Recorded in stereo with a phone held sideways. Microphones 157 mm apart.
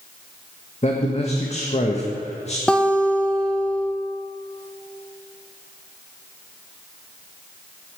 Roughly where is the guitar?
Centre.